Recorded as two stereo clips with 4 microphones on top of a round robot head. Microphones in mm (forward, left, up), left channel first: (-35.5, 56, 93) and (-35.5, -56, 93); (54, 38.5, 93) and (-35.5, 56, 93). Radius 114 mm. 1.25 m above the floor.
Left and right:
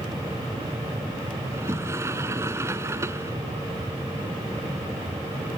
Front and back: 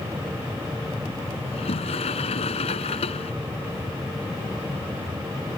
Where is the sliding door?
20° right.